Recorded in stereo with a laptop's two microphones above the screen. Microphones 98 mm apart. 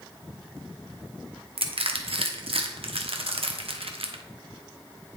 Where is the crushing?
75° right (ahead or behind), 0.9 m.